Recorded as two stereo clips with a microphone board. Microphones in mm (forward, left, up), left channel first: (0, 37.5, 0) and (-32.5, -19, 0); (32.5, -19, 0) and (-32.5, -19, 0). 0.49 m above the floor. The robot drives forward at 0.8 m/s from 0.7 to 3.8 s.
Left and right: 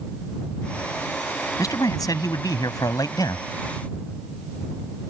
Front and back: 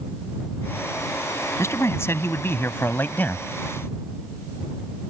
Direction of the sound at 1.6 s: 40° left.